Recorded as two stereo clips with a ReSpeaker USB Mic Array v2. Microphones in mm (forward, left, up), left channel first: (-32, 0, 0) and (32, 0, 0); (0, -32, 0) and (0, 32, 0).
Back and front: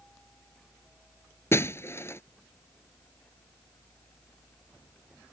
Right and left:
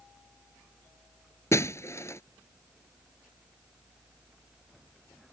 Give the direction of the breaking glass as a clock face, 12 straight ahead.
4 o'clock.